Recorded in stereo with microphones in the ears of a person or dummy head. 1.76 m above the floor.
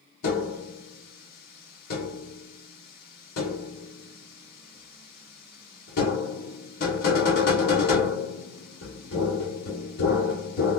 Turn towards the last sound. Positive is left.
turn(degrees=55)  # may be behind; listen again after turning